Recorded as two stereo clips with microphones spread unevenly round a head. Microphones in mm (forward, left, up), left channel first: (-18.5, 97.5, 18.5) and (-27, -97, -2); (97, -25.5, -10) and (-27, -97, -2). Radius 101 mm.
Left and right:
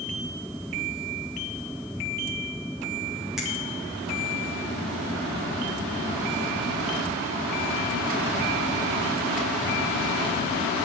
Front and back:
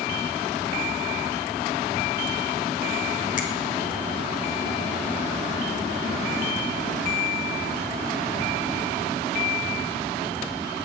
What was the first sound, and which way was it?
A finger snap, straight ahead.